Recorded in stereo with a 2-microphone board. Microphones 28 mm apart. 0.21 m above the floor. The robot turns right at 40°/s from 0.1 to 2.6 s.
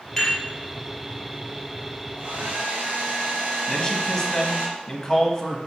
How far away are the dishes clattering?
About 3 m.